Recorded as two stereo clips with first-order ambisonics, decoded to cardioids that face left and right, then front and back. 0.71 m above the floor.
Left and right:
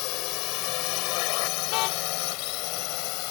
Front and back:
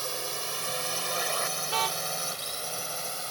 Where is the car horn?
115° left.